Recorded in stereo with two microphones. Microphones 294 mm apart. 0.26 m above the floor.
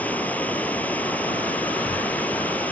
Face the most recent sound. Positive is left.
turn(degrees=5)  # may be behind; listen again after turning